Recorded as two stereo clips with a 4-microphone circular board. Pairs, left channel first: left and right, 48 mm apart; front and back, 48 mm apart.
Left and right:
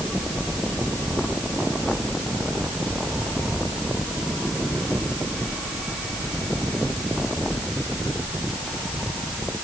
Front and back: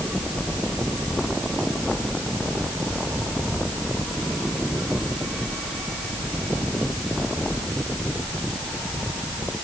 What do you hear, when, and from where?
Only background noise.